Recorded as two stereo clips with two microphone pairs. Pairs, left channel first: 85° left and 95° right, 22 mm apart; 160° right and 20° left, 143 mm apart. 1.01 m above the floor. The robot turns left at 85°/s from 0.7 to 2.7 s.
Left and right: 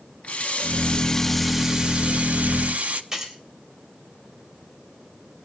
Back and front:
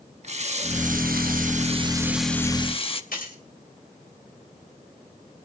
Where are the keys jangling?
160° right, 3.5 m.